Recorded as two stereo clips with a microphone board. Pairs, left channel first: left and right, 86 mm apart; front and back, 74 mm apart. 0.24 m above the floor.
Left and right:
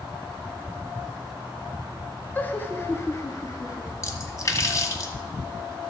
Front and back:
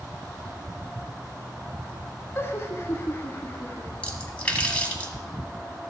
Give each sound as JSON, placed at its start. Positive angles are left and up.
{"t": 2.4, "sound": "laughter", "azimuth_deg": 30, "distance_m": 1.2}
{"t": 4.0, "sound": "a splash", "azimuth_deg": 65, "distance_m": 1.5}